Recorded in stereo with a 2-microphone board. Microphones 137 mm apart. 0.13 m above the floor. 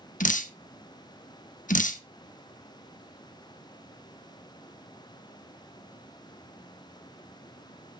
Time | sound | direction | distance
0.2 | dripping | 75° left (ahead or behind) | 0.8 m